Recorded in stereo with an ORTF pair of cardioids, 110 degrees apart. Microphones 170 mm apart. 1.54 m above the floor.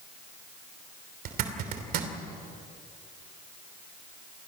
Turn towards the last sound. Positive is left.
turn(degrees=-70)